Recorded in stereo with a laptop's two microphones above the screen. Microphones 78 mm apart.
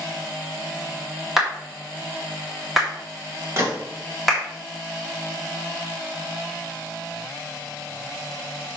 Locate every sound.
1.4 s a clap: centre (ahead or behind), 2.0 m
3.6 s a gunshot: 35° right (ahead or behind), 1.6 m